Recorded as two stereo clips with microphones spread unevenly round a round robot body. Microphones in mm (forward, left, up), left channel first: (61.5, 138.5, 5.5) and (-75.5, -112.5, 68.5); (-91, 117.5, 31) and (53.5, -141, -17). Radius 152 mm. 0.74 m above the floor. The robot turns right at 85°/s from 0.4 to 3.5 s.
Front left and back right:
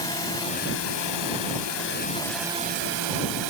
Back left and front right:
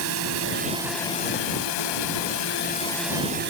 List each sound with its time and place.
0.0 s a drone: 15° right; by 3.5 s 110° right